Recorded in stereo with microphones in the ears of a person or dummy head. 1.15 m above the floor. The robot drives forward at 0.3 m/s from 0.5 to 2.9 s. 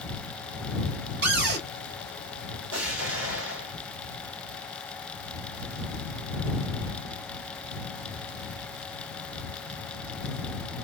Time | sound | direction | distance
1.2 | a cupboard door | 65° right (ahead or behind) | 1.4 m
2.7 | an explosion | 75° right (ahead or behind) | 2 m